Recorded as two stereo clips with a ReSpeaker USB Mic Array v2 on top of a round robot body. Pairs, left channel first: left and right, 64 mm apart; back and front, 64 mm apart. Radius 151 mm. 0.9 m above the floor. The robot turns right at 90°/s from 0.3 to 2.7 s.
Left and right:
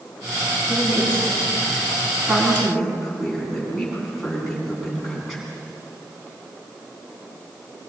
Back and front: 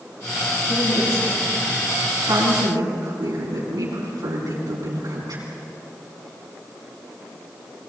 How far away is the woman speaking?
About 10 m.